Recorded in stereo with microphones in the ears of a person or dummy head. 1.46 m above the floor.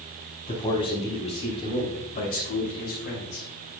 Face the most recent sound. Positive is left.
turn(degrees=60)  # may be behind; listen again after turning